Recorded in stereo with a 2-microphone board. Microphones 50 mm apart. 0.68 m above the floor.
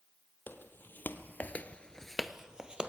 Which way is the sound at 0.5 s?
40° left (ahead or behind).